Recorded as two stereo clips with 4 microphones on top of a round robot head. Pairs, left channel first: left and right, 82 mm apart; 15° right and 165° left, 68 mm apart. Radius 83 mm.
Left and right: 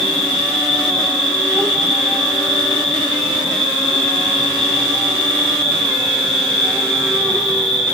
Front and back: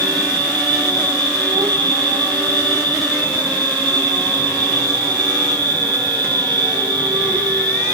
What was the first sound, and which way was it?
An insect, 170° left.